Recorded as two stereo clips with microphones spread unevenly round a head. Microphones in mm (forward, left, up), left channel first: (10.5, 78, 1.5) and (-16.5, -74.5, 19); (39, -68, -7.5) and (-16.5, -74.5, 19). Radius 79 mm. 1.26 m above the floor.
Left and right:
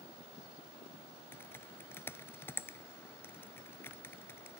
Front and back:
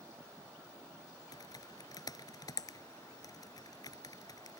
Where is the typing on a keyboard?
5° left.